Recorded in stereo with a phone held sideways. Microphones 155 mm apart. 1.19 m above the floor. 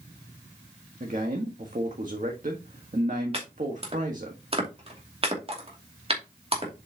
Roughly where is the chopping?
Right.